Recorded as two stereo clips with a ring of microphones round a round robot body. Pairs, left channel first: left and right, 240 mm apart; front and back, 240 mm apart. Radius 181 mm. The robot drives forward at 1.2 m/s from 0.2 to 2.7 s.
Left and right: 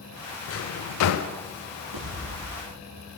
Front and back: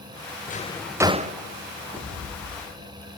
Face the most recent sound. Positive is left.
turn(degrees=-105)